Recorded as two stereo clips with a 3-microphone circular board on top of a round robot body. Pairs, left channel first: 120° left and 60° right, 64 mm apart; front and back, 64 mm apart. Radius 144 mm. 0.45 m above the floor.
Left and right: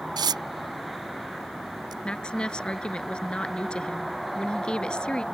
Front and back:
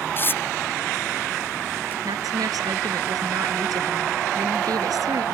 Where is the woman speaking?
165° right.